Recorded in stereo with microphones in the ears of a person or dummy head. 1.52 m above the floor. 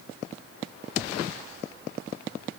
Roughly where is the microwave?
No microwave in this recording.